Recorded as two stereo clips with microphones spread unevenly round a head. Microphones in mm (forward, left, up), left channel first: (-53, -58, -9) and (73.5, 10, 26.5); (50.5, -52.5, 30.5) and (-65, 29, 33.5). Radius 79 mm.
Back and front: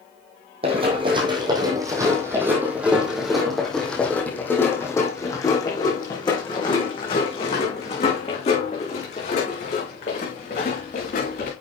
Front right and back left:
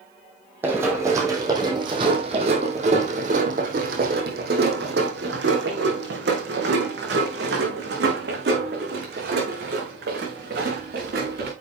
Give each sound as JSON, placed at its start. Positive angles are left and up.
{"t": 0.6, "sound": "running footsteps", "azimuth_deg": 70, "distance_m": 3.0}